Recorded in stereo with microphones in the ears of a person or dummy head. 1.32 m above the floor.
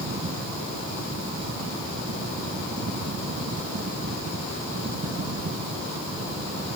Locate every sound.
0.0 s a fan: 65° right (ahead or behind), 0.8 m